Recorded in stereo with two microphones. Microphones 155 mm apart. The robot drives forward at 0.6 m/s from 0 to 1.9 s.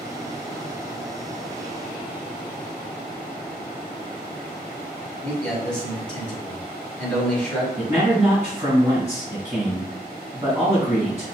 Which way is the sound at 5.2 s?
5° left (ahead or behind).